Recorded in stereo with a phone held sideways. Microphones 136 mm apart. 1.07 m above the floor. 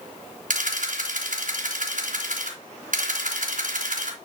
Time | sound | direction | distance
0.5 | a camera shutter | 75° right (ahead or behind) | 3 m